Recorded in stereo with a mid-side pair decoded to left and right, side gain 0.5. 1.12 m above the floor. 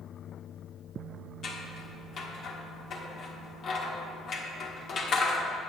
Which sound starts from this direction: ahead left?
Scissors, at 1.4 s.